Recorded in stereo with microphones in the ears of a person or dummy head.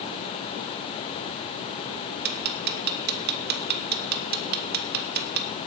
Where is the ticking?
50° right (ahead or behind), 1.8 m.